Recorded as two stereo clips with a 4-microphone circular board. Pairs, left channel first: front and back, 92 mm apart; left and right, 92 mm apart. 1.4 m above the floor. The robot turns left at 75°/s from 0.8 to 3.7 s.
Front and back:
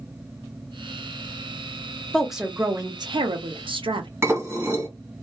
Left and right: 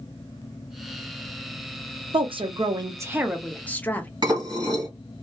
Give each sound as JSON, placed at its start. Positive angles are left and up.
{"t": 2.1, "sound": "a woman speaking", "azimuth_deg": -80, "distance_m": 0.6}
{"t": 4.2, "sound": "dishes clattering", "azimuth_deg": -120, "distance_m": 1.3}